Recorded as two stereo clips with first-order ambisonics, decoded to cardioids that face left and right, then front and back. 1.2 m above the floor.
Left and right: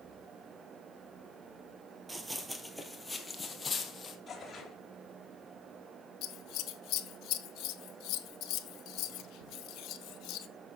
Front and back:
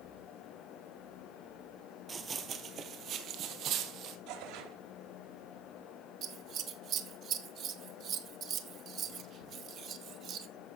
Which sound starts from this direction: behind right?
Running footsteps, at 2.1 s.